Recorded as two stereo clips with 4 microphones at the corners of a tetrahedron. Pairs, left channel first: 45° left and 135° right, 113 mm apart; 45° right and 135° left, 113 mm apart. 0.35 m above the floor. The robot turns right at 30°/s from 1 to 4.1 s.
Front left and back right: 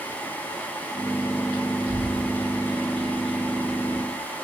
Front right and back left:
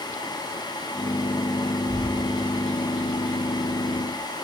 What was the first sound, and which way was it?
A bird, 95° left.